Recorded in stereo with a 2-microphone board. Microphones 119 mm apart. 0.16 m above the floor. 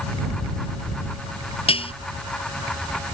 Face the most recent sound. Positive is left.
turn(degrees=50)  # may be behind; listen again after turning